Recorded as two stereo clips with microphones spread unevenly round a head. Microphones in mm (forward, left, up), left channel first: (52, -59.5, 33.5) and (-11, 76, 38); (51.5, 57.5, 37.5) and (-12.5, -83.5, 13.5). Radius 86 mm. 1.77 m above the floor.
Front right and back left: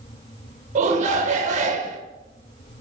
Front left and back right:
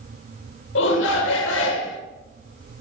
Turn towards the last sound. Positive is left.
turn(degrees=70)